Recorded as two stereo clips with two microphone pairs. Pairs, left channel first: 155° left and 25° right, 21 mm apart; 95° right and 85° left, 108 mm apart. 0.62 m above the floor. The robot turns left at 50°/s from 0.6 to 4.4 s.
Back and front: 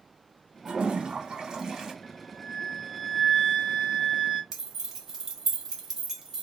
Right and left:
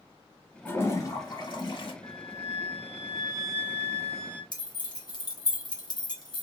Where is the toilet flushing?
25° right, 0.6 m; by 1.9 s 90° right, 0.6 m.